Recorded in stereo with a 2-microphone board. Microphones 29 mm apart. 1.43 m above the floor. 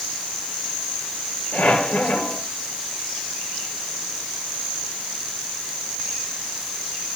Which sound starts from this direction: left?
A squeak, at 1.5 s.